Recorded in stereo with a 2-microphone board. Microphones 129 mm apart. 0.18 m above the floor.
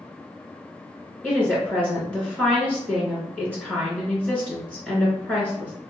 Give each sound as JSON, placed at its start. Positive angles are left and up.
{"t": 1.2, "sound": "a woman speaking", "side_deg": 10, "distance_m": 2.0}